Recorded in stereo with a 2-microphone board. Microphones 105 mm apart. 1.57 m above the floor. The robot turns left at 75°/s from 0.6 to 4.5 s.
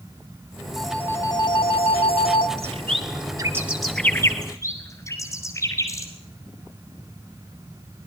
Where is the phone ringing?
Straight behind, 2 m; by 2.5 s 55° left, 2 m.